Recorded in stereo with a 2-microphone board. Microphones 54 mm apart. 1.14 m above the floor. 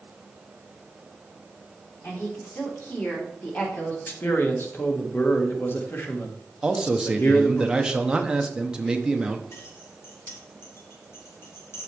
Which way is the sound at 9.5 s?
55° left (ahead or behind).